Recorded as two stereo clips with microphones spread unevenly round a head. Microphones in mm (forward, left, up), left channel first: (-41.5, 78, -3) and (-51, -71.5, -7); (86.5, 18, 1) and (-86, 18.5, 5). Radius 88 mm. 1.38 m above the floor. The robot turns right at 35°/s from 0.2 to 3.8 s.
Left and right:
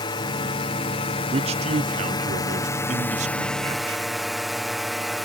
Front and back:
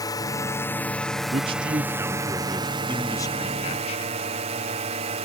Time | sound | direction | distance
0.0 | a drone | 50° left | ?
1.3 | a man speaking | 130° right | ?